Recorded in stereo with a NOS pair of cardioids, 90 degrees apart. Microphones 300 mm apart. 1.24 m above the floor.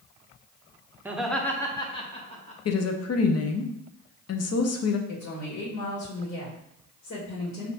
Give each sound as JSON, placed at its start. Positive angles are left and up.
{"t": 1.1, "sound": "laughter", "azimuth_deg": -5, "distance_m": 0.8}
{"t": 2.6, "sound": "a woman speaking", "azimuth_deg": 55, "distance_m": 0.9}
{"t": 5.1, "sound": "a woman speaking", "azimuth_deg": 60, "distance_m": 1.7}